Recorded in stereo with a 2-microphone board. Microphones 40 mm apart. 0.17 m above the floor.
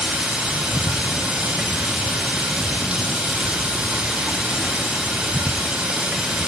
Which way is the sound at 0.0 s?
25° right (ahead or behind).